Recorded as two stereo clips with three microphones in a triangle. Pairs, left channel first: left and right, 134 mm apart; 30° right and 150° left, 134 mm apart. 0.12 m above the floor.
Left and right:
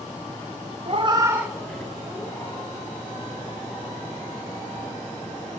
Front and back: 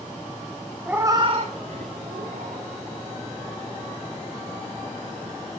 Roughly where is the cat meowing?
Behind right.